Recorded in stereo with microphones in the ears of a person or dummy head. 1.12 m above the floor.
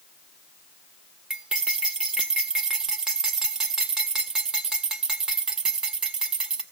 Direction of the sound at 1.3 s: 5° right (ahead or behind).